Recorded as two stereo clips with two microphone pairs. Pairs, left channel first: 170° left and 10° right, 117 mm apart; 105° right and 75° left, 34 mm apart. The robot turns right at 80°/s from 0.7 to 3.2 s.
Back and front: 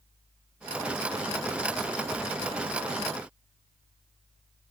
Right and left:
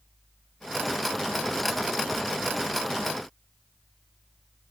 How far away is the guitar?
I don't hear a guitar.